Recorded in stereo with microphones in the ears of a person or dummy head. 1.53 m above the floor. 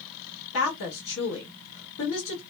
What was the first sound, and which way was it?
A woman speaking, 65° left (ahead or behind).